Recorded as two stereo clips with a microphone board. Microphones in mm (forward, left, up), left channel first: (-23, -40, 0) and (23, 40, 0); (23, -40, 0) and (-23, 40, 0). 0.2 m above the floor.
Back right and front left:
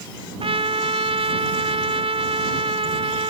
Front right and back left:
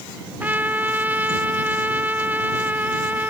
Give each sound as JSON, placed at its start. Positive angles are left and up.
{"t": 0.4, "sound": "a trumpet", "azimuth_deg": 50}